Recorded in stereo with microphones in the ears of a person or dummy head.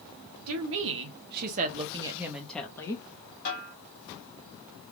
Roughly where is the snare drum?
Left.